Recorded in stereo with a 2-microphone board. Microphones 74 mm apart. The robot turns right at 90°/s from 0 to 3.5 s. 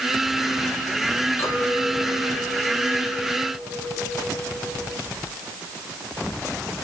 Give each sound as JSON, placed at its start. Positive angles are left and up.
{"t": 1.4, "sound": "a clink", "azimuth_deg": 40, "distance_m": 2.5}